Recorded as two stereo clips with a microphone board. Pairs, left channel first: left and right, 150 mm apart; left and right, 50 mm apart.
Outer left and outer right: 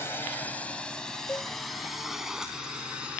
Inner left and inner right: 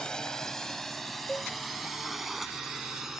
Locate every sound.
0.0 s a drone: 15° left (ahead or behind); by 3.2 s 5° right (ahead or behind)
1.3 s a cowbell: 15° left (ahead or behind)